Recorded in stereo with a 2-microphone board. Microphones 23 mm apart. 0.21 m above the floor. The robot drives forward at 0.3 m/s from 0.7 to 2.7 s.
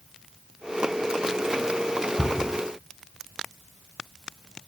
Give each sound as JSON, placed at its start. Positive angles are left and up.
{"t": 2.2, "sound": "a cupboard door", "side_deg": 10, "distance_m": 0.7}